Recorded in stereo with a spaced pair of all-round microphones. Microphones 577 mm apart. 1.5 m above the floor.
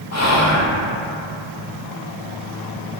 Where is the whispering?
30° left (ahead or behind), 0.7 m.